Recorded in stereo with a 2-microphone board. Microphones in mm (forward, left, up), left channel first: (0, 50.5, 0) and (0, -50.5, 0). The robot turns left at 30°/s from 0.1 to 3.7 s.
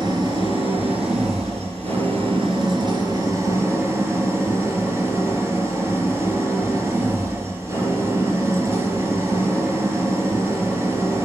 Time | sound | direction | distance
0.0 | an engine running | 50° right | 4 m